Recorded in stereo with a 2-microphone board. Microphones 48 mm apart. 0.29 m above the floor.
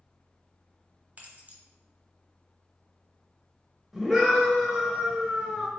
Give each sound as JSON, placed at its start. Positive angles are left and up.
{"t": 1.2, "sound": "keys jangling", "side_deg": -35, "distance_m": 0.9}
{"t": 3.9, "sound": "a scream", "side_deg": -10, "distance_m": 1.0}